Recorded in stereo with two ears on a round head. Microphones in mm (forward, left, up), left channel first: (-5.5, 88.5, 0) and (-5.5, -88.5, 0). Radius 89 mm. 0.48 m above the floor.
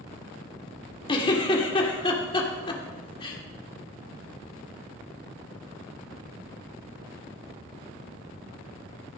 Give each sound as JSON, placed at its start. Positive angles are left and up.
{"t": 1.1, "sound": "a giggle", "side_deg": 25, "distance_m": 1.5}